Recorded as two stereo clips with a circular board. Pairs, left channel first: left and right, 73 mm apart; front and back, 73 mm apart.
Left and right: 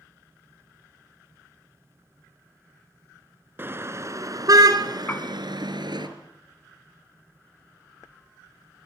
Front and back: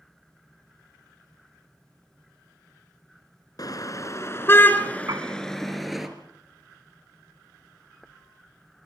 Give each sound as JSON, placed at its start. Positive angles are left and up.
{"t": 3.6, "sound": "a car horn", "azimuth_deg": -30, "distance_m": 3.0}
{"t": 5.1, "sound": "a piano", "azimuth_deg": 150, "distance_m": 1.2}